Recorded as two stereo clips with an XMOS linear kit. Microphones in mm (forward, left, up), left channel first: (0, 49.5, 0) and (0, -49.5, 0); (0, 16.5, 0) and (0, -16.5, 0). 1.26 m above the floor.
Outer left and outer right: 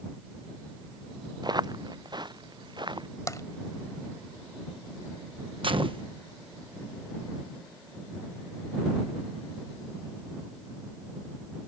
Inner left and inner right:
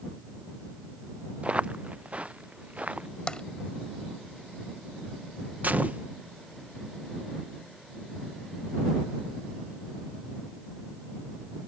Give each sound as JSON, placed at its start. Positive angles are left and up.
{"t": 1.4, "sound": "footsteps", "side_deg": -40}
{"t": 3.3, "sound": "tapping", "side_deg": 30}
{"t": 5.6, "sound": "a gunshot", "side_deg": -55}